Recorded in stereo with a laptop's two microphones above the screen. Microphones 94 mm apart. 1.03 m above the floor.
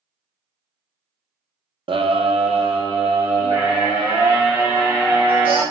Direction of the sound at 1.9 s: 65° right (ahead or behind).